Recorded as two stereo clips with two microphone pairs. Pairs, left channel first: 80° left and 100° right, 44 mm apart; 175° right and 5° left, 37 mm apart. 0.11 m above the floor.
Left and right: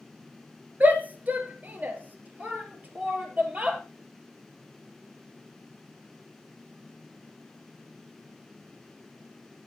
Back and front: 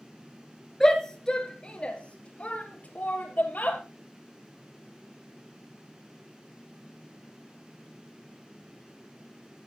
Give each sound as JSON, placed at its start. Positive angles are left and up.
{"t": 0.8, "sound": "a shout", "azimuth_deg": -105, "distance_m": 2.0}